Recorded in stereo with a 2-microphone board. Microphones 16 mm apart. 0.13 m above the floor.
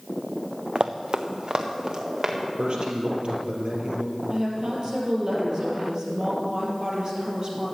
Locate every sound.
0.8 s running footsteps: 80° right, 0.7 m; by 2.4 s 50° right (ahead or behind), 2.5 m
2.6 s a man speaking: 60° right (ahead or behind), 3 m
4.3 s a woman speaking: 45° right (ahead or behind), 3.5 m